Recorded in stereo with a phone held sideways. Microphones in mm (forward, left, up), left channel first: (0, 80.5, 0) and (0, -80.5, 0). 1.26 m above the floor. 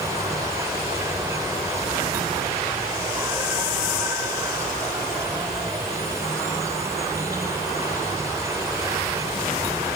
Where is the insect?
20° right (ahead or behind).